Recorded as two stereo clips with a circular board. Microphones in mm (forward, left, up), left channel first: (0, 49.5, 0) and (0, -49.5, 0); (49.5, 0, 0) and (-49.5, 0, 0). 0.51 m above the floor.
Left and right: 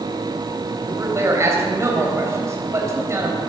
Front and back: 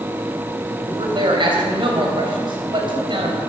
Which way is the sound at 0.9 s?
150° right.